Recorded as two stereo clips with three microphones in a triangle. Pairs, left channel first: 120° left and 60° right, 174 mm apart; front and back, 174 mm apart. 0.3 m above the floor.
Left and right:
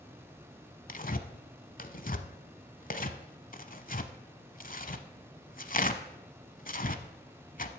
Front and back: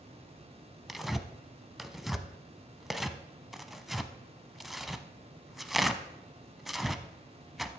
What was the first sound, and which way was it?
Tearing paper, 90° left.